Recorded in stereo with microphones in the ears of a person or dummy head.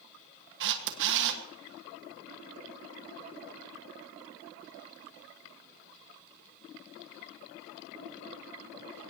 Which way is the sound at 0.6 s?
65° right (ahead or behind).